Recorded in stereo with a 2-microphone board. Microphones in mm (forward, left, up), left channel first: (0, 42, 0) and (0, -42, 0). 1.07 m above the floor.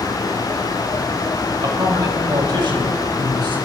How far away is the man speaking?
About 6 m.